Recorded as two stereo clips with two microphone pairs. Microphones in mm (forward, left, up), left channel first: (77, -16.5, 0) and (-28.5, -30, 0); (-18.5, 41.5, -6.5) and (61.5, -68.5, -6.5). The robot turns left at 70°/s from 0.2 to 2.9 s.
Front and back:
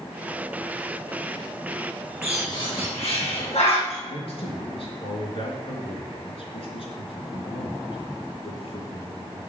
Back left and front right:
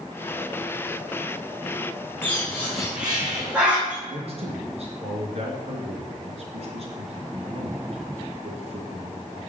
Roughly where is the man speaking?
Ahead.